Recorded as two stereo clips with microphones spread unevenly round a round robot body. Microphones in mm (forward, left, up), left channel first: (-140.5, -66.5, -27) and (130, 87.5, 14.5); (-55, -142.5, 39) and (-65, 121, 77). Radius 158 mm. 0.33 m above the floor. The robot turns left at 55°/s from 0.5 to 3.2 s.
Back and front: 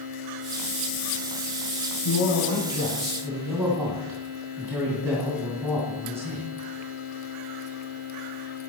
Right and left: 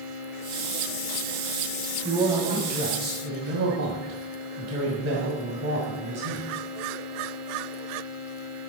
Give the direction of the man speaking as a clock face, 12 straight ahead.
6 o'clock.